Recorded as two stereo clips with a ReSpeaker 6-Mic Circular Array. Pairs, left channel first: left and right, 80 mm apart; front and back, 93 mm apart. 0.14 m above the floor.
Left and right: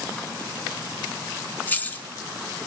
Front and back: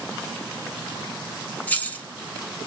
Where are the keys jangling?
50° left, 0.8 m.